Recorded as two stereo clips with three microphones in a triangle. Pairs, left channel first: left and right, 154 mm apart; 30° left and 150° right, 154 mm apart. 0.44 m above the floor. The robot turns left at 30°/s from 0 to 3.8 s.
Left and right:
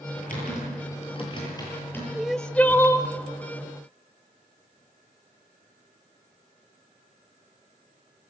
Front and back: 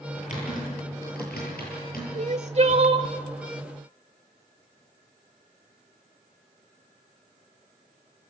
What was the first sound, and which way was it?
Typing on a keyboard, 70° left.